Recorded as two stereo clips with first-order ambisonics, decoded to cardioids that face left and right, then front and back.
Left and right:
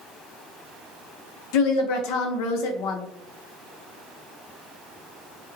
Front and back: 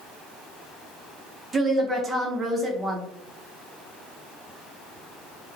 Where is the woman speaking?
110° left, 0.6 m.